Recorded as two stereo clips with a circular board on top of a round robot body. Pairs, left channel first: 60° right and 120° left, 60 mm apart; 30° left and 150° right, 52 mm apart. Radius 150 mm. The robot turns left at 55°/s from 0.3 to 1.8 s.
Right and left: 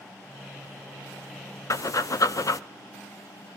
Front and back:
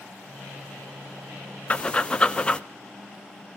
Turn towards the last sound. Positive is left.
turn(degrees=-40)